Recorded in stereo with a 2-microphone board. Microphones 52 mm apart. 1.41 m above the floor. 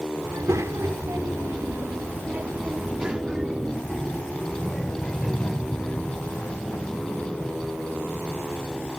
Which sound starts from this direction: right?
A child speaking, at 0.2 s.